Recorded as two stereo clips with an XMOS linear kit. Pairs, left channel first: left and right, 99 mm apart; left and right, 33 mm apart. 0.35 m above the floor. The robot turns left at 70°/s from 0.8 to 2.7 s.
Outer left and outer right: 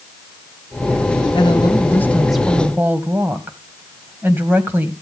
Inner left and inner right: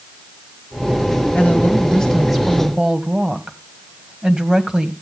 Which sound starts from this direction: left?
A woman speaking, at 1.4 s.